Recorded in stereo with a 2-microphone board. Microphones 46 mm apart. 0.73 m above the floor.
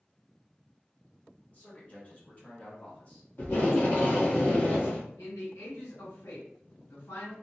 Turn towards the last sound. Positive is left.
turn(degrees=80)